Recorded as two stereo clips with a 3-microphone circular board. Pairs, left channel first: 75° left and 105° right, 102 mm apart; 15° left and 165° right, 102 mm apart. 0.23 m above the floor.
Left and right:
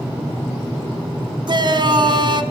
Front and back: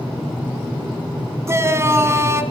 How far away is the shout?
About 2.0 m.